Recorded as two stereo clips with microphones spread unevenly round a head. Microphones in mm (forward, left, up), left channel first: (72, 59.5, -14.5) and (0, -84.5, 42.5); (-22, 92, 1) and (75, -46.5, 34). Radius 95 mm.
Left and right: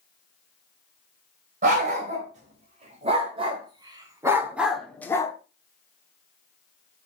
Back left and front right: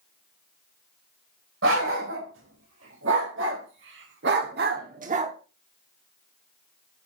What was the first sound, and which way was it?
A dog barking, 80° right.